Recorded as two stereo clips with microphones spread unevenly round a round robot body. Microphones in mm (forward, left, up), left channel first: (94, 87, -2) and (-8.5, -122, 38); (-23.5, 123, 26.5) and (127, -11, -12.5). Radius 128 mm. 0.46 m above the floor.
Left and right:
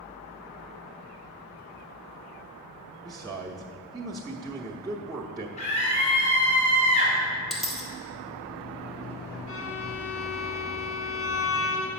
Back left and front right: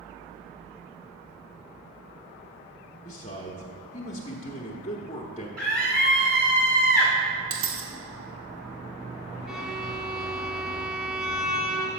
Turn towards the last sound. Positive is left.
turn(degrees=40)